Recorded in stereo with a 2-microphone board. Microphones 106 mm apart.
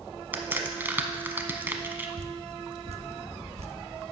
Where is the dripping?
70° right (ahead or behind), 0.7 m.